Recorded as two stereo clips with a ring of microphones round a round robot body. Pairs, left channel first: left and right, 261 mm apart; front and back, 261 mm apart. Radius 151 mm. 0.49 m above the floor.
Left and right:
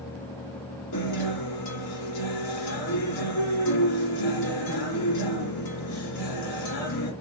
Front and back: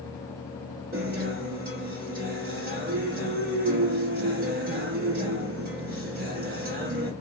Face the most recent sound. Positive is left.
turn(degrees=120)